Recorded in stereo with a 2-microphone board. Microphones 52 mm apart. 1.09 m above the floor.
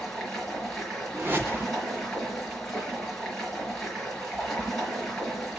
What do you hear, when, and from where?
0.0 s running water: 5° left (ahead or behind), 5.5 m
1.1 s a whoosh: 40° right (ahead or behind), 2.5 m